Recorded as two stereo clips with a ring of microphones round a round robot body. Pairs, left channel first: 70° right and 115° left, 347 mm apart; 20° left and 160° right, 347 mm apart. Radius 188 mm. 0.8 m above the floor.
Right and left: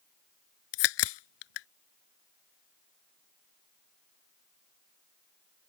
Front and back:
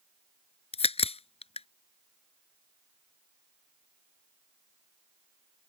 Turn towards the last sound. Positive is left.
turn(degrees=-50)